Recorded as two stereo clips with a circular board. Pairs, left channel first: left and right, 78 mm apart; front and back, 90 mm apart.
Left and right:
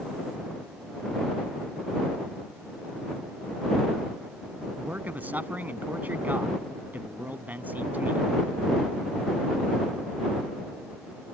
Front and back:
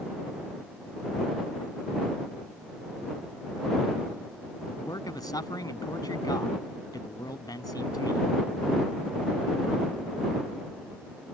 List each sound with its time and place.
4.8 s a man speaking: 25° right